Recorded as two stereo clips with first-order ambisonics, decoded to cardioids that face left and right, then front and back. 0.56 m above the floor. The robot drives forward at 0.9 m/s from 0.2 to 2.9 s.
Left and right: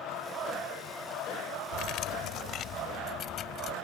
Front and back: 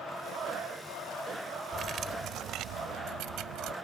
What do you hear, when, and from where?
1.7 s cutlery clinking: 120° left; by 3.7 s 145° left